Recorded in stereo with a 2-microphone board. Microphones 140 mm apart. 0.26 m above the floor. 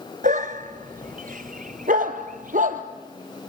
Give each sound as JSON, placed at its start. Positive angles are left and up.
{"t": 0.2, "sound": "a dog barking", "side_deg": -70, "distance_m": 1.3}